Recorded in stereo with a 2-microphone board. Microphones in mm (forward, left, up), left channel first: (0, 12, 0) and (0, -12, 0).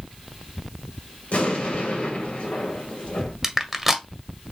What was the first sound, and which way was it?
An explosion, 75° left (ahead or behind).